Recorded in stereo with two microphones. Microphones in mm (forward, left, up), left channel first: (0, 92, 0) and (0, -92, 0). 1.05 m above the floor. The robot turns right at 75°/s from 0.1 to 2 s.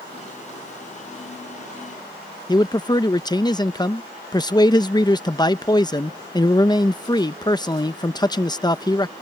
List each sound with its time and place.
2.5 s a man speaking: 20° left (ahead or behind)